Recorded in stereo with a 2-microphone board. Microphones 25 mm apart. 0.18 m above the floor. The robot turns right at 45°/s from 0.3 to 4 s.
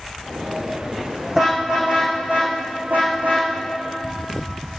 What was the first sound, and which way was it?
A car horn, 10° right (ahead or behind).